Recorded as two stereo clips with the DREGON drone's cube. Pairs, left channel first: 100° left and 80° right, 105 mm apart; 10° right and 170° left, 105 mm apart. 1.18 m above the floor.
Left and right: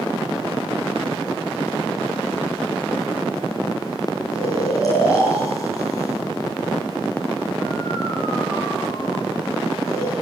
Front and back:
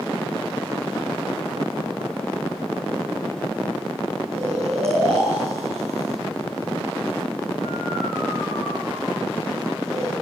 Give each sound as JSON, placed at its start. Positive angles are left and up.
{"t": 4.3, "sound": "snoring", "azimuth_deg": 160, "distance_m": 9.5}